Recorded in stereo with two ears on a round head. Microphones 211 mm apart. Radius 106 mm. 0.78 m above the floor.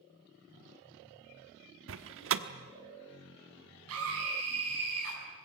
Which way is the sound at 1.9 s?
55° right (ahead or behind).